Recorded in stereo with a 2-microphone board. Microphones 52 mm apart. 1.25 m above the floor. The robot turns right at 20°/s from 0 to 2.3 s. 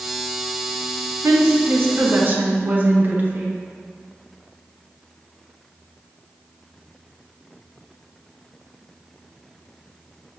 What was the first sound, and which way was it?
A woman speaking, 60° right (ahead or behind).